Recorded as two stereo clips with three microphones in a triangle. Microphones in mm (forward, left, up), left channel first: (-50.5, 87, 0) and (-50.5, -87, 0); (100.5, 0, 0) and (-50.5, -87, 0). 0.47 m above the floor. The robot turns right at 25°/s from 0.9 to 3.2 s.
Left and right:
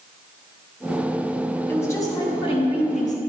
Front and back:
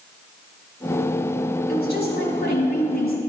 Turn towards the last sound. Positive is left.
turn(degrees=50)